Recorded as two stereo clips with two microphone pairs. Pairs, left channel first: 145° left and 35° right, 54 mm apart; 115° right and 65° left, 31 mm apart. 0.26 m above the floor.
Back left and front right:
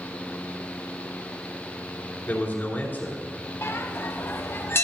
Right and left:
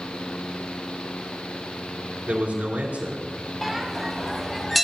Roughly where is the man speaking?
Left.